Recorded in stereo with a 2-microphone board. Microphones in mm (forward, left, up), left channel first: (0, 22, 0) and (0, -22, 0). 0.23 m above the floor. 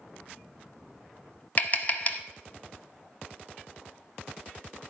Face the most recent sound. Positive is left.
turn(degrees=35)  # may be behind; listen again after turning